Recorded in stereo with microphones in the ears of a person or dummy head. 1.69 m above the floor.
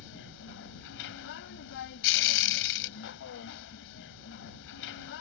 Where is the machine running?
70° left (ahead or behind).